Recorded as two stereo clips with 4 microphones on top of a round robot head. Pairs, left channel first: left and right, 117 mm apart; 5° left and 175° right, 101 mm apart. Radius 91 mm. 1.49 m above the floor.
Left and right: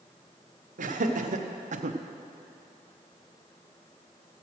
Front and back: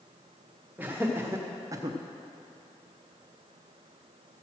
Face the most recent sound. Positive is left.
turn(degrees=-120)